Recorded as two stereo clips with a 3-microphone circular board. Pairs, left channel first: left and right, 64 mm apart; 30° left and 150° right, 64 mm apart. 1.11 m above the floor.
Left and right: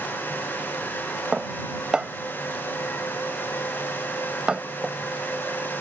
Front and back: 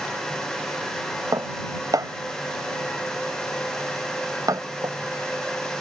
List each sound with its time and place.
1.3 s dishes clattering: 165° right